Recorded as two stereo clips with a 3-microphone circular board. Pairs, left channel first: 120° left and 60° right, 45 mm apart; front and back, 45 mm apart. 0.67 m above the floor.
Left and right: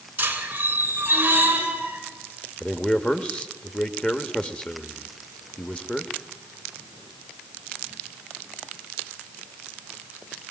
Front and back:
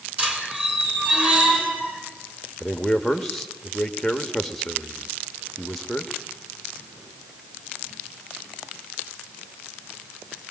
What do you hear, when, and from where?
0.2 s a squeak: 115° right, 3 m
2.6 s a man speaking: 85° left, 1.3 m